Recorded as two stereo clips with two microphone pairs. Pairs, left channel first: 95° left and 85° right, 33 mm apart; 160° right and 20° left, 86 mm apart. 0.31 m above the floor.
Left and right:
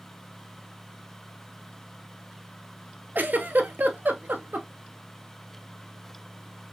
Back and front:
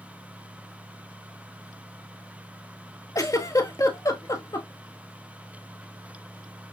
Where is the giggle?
110° right, 0.8 m.